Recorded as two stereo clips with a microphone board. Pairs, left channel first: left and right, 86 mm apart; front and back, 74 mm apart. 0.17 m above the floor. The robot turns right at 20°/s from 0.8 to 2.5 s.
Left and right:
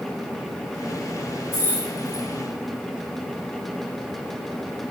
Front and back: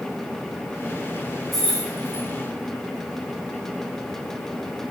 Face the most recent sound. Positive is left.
turn(degrees=110)